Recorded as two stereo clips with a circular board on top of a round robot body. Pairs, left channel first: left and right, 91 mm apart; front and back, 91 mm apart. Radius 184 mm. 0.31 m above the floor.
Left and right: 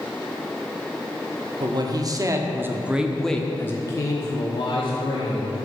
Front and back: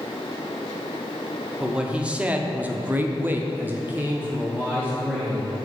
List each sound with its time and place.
1.6 s a man speaking: 105° right, 1.4 m; by 5.6 s 105° left, 1.8 m